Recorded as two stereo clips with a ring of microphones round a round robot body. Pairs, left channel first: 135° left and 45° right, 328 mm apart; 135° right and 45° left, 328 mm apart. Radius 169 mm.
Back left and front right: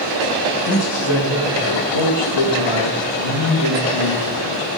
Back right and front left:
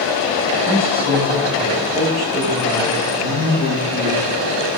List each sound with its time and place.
0.6 s a man speaking: 115° left, 4 m; by 4.7 s 150° left, 3 m